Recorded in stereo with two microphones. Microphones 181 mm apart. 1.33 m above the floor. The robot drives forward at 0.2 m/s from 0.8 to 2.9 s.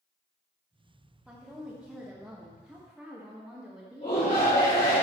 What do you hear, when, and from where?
1.3 s a woman speaking: 5° right (ahead or behind), 1.4 m
4.0 s a shout: 55° left (ahead or behind), 2.5 m